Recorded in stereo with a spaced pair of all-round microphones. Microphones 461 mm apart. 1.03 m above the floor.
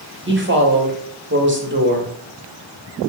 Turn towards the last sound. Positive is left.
turn(degrees=-25)  # may be behind; listen again after turning